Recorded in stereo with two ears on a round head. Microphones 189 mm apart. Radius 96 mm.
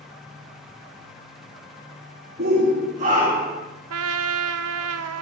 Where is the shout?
50° right (ahead or behind), 3 m; by 3.6 s 20° right (ahead or behind), 3 m.